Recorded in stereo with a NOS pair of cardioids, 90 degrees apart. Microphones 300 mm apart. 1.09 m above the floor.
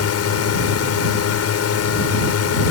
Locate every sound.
0.0 s a drone: 60° left